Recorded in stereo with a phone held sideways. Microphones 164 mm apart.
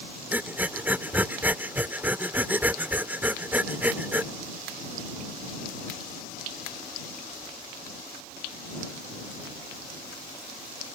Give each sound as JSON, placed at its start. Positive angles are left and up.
{"t": 0.3, "sound": "breathing", "side_deg": -10}